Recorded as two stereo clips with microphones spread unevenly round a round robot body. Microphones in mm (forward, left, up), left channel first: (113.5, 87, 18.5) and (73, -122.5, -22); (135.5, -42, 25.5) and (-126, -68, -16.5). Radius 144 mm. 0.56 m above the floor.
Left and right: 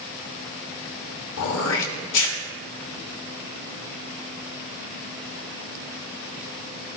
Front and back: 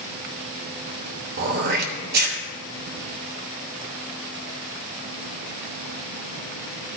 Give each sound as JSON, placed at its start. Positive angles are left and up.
{"t": 1.4, "sound": "throat clearing", "azimuth_deg": 130, "distance_m": 0.8}